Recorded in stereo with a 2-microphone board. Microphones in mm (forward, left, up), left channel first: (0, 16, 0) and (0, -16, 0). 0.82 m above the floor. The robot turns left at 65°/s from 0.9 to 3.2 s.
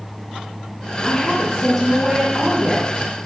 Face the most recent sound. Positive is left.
turn(degrees=-100)